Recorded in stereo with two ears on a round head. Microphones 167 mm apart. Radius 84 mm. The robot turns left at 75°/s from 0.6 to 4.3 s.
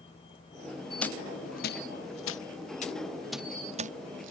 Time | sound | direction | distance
0.0 | a vehicle | 150° left | ?
1.0 | a dropped coin | 5° left (ahead or behind) | ?